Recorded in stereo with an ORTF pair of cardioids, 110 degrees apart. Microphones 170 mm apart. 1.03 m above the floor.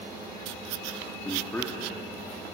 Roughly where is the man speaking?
Ahead.